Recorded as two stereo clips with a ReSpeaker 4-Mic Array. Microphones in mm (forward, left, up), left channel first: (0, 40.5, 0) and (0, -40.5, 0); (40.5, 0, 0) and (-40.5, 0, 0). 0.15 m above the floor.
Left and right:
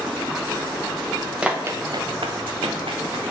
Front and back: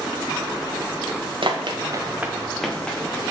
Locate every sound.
1.4 s running footsteps: 170° right, 1.1 m; by 3.2 s 75° right, 2 m